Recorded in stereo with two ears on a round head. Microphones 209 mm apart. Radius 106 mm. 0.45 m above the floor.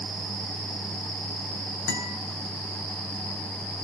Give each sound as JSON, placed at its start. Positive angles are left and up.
{"t": 1.9, "sound": "a guitar", "side_deg": 55, "distance_m": 2.5}